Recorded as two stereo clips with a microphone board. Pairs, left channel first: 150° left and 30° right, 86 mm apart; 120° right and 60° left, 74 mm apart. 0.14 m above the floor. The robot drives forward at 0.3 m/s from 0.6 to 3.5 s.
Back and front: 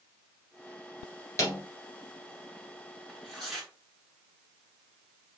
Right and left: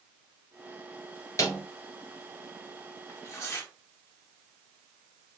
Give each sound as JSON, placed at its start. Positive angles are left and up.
{"t": 1.4, "sound": "a snare drum", "azimuth_deg": -160, "distance_m": 1.9}
{"t": 3.1, "sound": "tearing paper", "azimuth_deg": -120, "distance_m": 1.7}